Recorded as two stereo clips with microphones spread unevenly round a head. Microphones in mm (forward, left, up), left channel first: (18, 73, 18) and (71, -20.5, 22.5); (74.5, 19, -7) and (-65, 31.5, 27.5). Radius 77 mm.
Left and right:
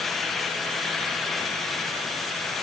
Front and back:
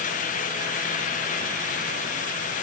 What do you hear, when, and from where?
Only background noise.